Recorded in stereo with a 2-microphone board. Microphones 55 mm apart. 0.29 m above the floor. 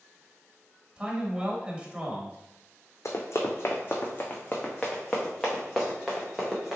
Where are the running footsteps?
60° left (ahead or behind), 1.1 m; by 6.8 s 5° right (ahead or behind), 2 m.